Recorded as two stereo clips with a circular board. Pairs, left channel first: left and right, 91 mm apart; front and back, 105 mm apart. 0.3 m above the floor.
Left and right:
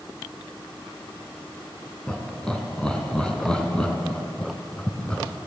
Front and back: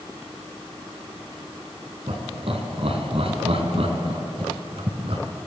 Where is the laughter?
170° left, 3 m.